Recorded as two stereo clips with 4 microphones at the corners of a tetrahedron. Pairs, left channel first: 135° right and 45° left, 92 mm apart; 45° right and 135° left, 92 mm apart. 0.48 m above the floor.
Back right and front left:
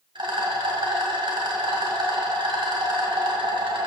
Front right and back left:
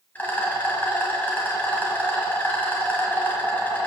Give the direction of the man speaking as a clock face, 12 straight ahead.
I don't hear a man speaking.